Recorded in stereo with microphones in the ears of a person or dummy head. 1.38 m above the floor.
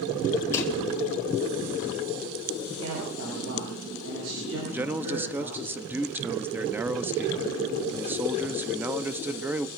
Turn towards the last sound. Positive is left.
turn(degrees=-15)  # may be behind; listen again after turning